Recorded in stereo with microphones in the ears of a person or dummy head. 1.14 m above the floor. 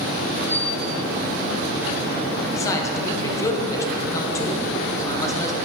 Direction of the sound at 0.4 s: 5° right (ahead or behind).